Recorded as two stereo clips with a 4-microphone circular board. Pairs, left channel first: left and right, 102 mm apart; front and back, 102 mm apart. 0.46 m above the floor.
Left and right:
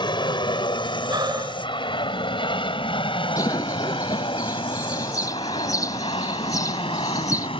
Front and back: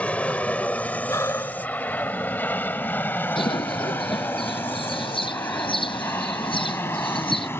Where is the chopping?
No chopping in this recording.